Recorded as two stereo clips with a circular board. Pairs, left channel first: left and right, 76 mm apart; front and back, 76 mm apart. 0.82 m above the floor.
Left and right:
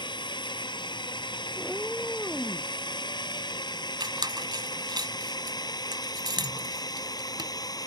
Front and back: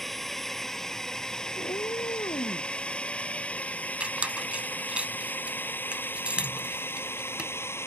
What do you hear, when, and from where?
0.0 s a drone: 90° left; by 7.9 s 55° left
1.6 s a cat meowing: 5° left
4.0 s a squeak: 105° right